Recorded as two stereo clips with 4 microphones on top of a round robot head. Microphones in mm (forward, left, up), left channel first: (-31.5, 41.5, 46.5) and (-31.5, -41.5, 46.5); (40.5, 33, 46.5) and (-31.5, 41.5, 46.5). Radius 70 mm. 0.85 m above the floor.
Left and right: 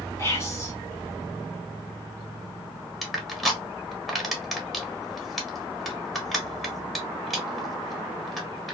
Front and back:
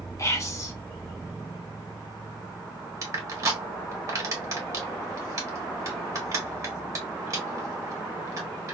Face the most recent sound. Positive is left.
turn(degrees=180)